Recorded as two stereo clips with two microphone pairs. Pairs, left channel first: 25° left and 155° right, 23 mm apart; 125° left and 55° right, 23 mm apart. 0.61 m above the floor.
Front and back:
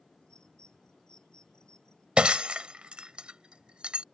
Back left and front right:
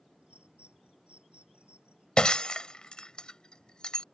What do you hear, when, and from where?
0.2 s a bird: 25° right
2.2 s breaking glass: 175° left